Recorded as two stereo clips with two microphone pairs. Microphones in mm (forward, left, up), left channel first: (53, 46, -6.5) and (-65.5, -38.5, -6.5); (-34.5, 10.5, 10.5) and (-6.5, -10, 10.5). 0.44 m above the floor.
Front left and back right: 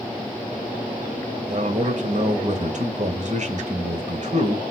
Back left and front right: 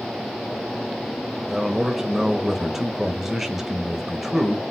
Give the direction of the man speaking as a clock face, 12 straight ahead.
4 o'clock.